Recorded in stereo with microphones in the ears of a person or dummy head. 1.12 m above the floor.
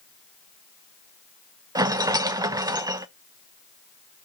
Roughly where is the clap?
No clap in this recording.